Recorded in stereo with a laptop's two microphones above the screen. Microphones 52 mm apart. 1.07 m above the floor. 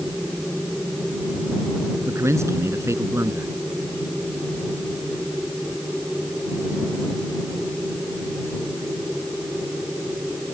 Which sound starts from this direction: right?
A man speaking, at 2.1 s.